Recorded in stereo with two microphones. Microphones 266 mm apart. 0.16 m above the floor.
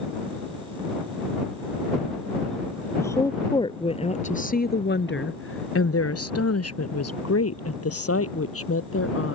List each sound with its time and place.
3.0 s a woman speaking: 10° left (ahead or behind); by 9.3 s 55° left (ahead or behind)